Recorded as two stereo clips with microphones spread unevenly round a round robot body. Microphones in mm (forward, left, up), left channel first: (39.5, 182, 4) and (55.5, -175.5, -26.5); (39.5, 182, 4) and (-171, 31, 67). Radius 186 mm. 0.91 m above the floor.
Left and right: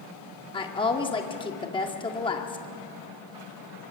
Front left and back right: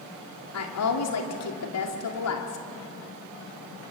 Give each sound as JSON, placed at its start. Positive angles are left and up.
{"t": 0.5, "sound": "a woman speaking", "azimuth_deg": 15, "distance_m": 2.0}